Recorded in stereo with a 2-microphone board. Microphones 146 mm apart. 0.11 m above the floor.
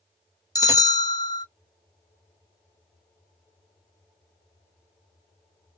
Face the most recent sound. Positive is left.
turn(degrees=25)  # may be behind; listen again after turning